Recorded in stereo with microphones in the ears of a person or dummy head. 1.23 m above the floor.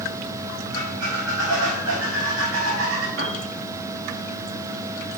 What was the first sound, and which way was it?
A squeak, 75° right (ahead or behind).